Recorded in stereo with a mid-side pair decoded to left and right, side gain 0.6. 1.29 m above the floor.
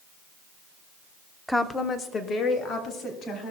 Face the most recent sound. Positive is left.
turn(degrees=50)